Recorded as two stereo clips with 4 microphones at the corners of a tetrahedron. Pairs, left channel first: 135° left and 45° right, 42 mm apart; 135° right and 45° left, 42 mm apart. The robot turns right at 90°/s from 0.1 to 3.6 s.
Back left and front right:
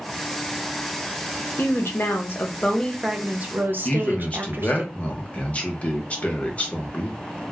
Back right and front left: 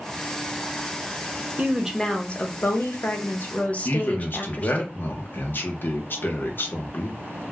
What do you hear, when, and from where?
1.6 s a woman speaking: 100° left, 0.6 m; by 4.8 s 80° right, 0.6 m
3.9 s a man speaking: 165° right, 0.7 m